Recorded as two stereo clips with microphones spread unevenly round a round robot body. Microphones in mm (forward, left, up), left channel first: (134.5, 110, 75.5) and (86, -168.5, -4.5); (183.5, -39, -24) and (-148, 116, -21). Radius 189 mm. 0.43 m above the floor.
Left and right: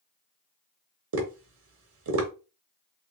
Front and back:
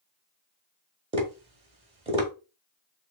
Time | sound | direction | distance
1.1 | tapping | 130° right | 0.8 m